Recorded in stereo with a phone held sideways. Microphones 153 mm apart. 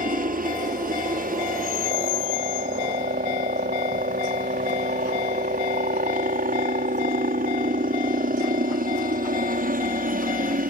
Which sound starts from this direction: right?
A helicopter, at 0.0 s.